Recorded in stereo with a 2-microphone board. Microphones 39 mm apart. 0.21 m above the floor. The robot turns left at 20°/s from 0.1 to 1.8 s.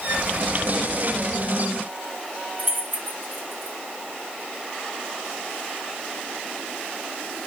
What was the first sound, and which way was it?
Keys jangling, 65° right (ahead or behind).